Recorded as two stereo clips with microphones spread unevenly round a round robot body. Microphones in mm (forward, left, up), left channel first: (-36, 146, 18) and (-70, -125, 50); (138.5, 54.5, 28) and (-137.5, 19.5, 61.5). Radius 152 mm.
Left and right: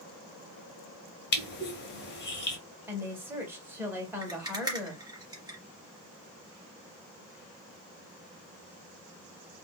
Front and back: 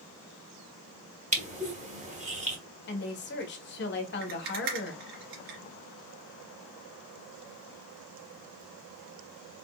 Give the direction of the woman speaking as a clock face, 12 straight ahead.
12 o'clock.